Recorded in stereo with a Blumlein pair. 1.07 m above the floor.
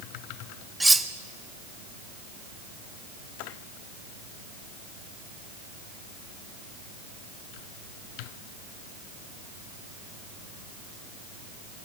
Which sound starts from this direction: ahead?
Cutlery clinking, at 0.8 s.